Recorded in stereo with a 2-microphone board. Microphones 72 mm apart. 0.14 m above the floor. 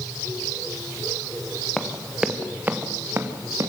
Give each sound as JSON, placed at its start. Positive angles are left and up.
{"t": 1.8, "sound": "running footsteps", "side_deg": 5, "distance_m": 2.5}